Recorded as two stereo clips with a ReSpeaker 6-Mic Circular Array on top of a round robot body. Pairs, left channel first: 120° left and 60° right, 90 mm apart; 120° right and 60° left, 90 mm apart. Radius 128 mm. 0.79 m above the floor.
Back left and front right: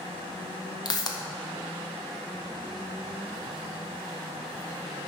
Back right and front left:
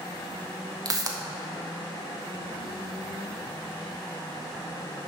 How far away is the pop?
About 1.4 m.